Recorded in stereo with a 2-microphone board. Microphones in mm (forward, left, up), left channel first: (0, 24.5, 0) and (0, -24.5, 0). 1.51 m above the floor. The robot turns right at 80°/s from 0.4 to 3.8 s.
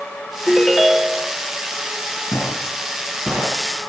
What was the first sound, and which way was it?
A ringtone, 155° left.